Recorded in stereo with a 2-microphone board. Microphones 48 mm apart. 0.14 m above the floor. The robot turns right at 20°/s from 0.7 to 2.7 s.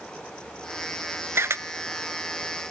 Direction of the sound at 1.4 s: 60° right (ahead or behind).